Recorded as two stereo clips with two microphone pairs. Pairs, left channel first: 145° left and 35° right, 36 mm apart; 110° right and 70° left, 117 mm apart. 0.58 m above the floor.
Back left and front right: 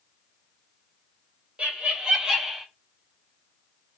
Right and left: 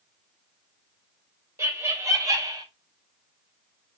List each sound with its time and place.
1.6 s laughter: 5° left, 1.0 m; by 2.7 s 45° left, 0.7 m